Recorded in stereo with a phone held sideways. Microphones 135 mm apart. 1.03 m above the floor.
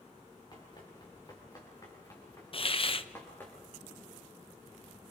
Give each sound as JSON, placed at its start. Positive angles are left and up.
{"t": 0.5, "sound": "running footsteps", "side_deg": 35, "distance_m": 7.0}
{"t": 2.5, "sound": "a hiss", "side_deg": 45, "distance_m": 0.8}